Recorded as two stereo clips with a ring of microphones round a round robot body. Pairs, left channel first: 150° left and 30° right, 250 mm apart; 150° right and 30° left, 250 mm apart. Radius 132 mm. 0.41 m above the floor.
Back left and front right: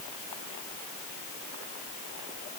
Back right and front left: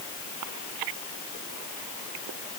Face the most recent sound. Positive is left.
No sound to turn to.